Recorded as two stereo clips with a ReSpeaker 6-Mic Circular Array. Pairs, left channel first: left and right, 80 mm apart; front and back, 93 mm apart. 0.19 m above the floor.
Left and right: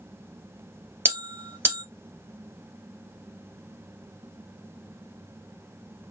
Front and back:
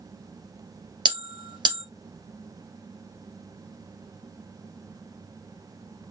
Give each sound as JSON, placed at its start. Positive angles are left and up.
{"t": 1.1, "sound": "a bell", "azimuth_deg": -145, "distance_m": 2.5}